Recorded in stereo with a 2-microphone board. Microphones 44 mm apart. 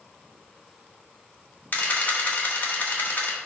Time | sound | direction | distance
1.7 | a camera shutter | 40° left (ahead or behind) | 1.4 m